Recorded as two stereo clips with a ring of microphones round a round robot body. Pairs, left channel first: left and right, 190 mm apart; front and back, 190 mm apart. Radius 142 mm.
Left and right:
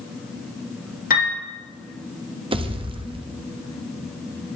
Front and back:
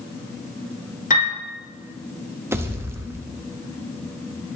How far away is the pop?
About 0.9 m.